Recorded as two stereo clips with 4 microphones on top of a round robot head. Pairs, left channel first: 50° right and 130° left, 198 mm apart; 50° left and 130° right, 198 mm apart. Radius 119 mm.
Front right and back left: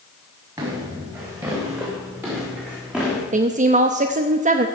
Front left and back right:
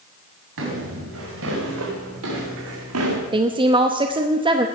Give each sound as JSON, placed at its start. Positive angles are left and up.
{"t": 0.6, "sound": "footsteps", "azimuth_deg": -155, "distance_m": 5.5}
{"t": 3.3, "sound": "a woman speaking", "azimuth_deg": 170, "distance_m": 0.8}